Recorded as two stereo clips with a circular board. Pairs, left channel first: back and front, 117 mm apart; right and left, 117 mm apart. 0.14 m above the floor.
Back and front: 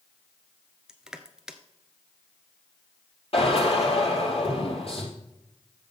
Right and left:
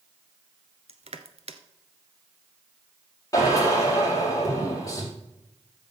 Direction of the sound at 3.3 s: 150° right.